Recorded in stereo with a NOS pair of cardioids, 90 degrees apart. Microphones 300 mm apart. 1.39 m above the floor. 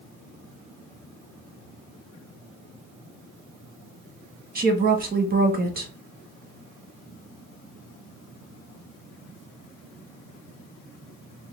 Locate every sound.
4.5 s a woman speaking: 30° right, 1.5 m